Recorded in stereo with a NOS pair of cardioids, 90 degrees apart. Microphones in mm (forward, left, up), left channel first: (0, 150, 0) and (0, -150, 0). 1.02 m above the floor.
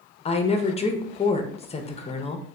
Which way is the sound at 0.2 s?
20° left.